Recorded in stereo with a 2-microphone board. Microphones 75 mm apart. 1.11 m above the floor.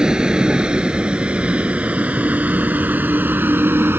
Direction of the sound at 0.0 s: 10° right (ahead or behind).